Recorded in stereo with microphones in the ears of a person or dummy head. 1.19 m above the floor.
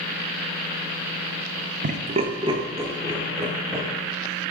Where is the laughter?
45° right (ahead or behind), 0.6 m; by 3.9 s 15° right (ahead or behind), 2.5 m.